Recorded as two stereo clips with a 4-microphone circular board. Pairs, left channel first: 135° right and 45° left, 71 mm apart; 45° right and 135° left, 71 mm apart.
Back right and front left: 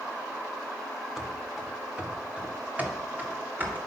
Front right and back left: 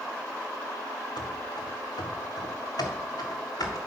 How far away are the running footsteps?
About 1.3 m.